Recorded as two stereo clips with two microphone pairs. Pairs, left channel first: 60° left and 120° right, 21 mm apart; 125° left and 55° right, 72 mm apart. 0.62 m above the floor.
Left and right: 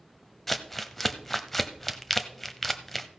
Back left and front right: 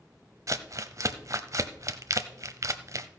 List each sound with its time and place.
0.5 s crumpling: 20° right, 0.8 m